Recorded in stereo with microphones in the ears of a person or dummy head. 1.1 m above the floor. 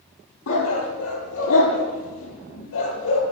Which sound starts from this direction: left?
A dog barking, at 0.5 s.